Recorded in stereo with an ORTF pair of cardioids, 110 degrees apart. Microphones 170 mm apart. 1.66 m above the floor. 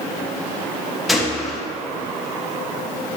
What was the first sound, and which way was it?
A gunshot, straight ahead.